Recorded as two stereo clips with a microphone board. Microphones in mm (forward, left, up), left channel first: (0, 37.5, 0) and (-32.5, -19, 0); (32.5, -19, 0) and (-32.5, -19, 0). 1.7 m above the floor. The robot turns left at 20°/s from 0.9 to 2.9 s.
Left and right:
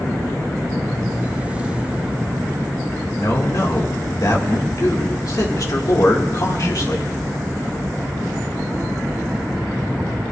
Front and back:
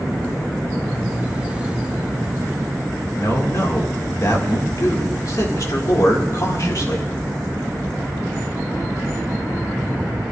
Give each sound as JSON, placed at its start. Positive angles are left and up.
{"t": 3.2, "sound": "a man speaking", "azimuth_deg": 30, "distance_m": 1.9}